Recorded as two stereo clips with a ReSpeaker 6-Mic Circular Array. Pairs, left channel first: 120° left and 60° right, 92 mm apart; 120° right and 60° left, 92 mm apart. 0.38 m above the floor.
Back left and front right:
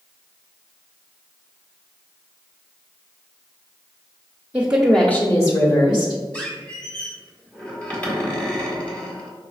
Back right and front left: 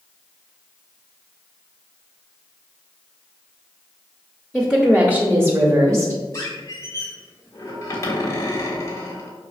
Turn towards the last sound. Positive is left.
turn(degrees=-170)